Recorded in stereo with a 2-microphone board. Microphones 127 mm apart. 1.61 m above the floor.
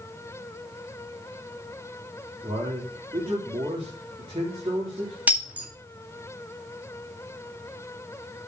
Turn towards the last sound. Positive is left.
turn(degrees=-10)  # may be behind; listen again after turning